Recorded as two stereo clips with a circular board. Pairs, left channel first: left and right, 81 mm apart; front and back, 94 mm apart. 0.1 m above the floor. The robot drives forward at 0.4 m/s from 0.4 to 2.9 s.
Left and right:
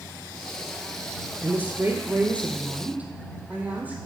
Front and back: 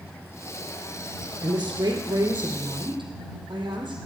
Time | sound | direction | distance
1.4 | a woman speaking | 145° right | 1.9 m